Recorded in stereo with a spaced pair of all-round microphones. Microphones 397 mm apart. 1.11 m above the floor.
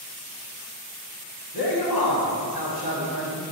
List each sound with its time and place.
1.5 s a man speaking: 65° left (ahead or behind), 1.0 m